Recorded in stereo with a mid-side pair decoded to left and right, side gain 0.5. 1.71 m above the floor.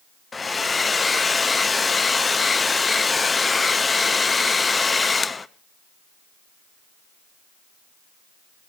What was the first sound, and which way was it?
A hair dryer, 25° left.